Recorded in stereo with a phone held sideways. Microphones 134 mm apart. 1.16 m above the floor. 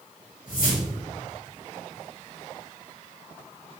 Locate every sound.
0.5 s a whoosh: 75° left (ahead or behind), 1.7 m